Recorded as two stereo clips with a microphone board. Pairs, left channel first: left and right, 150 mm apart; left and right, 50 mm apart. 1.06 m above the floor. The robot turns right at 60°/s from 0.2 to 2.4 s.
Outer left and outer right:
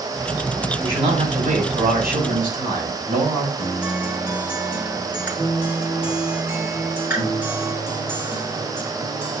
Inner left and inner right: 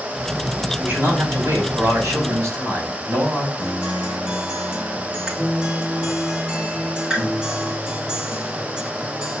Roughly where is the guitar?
Centre.